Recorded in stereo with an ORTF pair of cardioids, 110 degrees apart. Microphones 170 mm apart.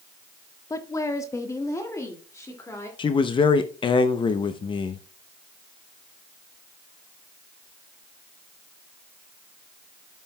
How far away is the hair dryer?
I don't hear a hair dryer.